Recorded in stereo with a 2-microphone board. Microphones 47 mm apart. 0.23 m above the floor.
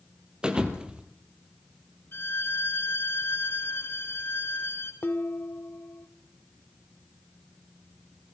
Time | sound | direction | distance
0.4 | a thud | 20° right (ahead or behind) | 3 m
2.1 | a violin | 50° left (ahead or behind) | 3.5 m
5.0 | dishes clattering | 50° left (ahead or behind) | 1.2 m